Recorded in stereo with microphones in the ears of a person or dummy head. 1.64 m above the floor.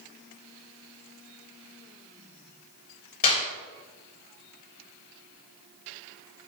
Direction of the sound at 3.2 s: 45° left (ahead or behind).